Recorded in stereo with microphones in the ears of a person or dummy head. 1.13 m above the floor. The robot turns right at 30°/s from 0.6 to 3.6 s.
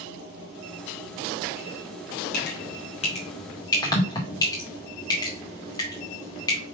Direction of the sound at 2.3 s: 60° left (ahead or behind).